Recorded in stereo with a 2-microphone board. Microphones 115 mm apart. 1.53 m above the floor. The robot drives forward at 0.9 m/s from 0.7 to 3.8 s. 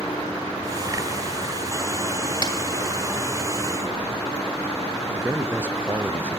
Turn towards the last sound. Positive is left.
turn(degrees=-15)  # may be behind; listen again after turning